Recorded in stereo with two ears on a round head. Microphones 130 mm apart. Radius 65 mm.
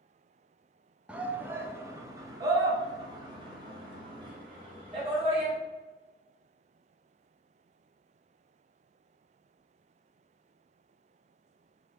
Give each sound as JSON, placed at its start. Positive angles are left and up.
{"t": 1.1, "sound": "a shout", "side_deg": -5, "distance_m": 1.2}